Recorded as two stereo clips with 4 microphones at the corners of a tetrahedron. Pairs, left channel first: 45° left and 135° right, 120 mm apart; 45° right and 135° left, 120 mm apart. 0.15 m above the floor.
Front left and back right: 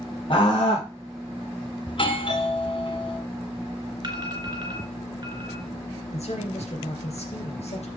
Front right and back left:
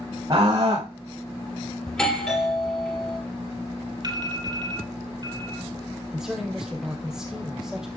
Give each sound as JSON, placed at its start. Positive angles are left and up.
{"t": 0.3, "sound": "a scream", "azimuth_deg": 85, "distance_m": 6.0}
{"t": 1.9, "sound": "a doorbell", "azimuth_deg": 40, "distance_m": 3.0}
{"t": 4.0, "sound": "an alarm", "azimuth_deg": 180, "distance_m": 2.5}
{"t": 6.1, "sound": "a man speaking", "azimuth_deg": 50, "distance_m": 2.5}